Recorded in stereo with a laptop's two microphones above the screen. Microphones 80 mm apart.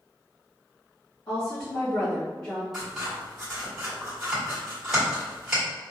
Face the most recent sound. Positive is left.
turn(degrees=-5)  # may be behind; listen again after turning